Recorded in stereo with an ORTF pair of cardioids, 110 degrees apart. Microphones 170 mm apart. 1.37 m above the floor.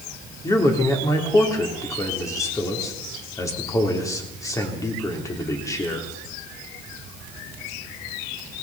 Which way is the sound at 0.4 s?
20° left.